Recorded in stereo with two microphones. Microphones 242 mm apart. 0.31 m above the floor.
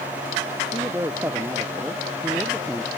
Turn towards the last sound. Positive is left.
turn(degrees=0)  # may be behind; listen again after turning